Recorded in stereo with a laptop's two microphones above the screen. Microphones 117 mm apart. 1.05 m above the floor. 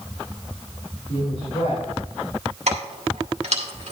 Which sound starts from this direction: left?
A woman speaking, at 1.1 s.